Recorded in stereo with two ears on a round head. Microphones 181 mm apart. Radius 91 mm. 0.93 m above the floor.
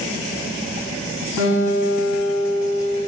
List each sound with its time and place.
1.4 s a guitar: 75° right (ahead or behind), 7 m